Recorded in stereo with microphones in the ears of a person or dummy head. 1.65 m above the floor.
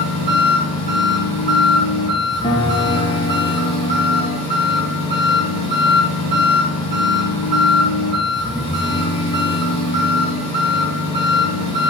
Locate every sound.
0.0 s an engine running: 25° left (ahead or behind), 5 m
2.4 s a piano: 25° left (ahead or behind), 1.3 m